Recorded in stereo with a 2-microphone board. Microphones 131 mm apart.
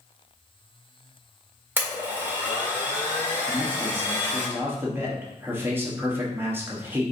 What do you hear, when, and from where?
1.8 s a blender: 15° right (ahead or behind), 1.6 m
3.5 s a man speaking: 15° right (ahead or behind), 1.0 m